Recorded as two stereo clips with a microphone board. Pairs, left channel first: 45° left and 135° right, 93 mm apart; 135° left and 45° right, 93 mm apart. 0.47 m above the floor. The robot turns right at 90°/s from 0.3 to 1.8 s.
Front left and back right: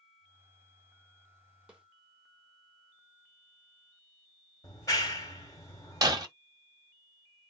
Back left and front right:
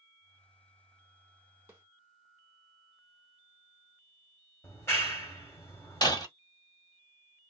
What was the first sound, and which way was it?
A snare drum, 70° right.